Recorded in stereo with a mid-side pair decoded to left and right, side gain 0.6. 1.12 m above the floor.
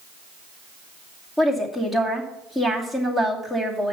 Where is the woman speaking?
15° left, 2.5 m.